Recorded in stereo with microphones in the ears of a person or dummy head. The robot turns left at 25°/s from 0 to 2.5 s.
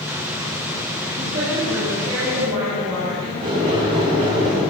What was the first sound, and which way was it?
A woman speaking, 40° right.